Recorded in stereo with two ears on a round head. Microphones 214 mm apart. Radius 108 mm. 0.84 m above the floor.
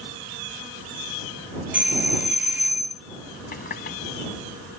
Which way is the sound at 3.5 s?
40° left (ahead or behind).